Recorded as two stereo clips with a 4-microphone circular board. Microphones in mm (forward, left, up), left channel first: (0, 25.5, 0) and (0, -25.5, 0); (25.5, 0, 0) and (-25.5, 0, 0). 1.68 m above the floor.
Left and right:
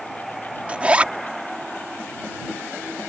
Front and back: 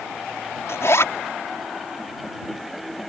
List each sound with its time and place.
0.7 s a zipper: 25° right